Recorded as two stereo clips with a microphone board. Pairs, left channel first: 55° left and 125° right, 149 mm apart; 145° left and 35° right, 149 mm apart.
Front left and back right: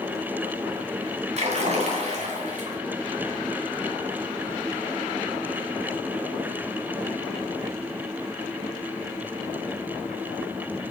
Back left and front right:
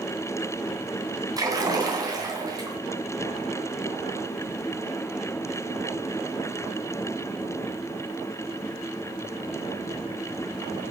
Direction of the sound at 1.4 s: 95° right.